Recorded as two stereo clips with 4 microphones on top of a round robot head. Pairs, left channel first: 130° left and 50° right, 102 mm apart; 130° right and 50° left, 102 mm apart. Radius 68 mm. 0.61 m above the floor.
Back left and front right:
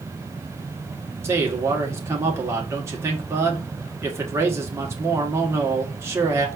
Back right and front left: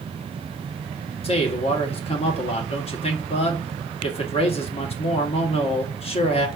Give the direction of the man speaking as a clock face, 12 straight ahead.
4 o'clock.